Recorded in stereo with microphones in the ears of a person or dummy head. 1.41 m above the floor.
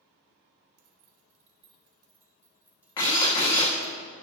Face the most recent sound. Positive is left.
turn(degrees=20)  # may be behind; listen again after turning